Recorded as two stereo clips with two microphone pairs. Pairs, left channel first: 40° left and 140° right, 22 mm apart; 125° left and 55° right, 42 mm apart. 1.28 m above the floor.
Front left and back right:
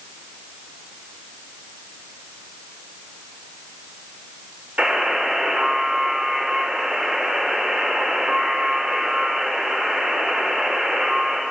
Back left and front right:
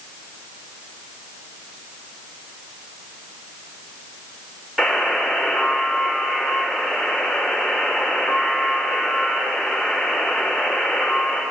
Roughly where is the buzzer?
Behind right.